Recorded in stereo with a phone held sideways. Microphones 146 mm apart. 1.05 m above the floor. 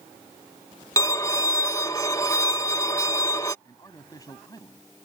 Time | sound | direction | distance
1.0 | a violin | 25° left (ahead or behind) | ?
3.6 | a man speaking | 25° left (ahead or behind) | ?